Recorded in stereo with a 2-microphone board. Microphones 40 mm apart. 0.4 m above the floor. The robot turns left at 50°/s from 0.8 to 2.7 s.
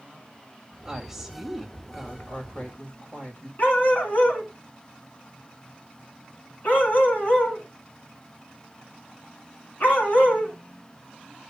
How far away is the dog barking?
About 2.0 m.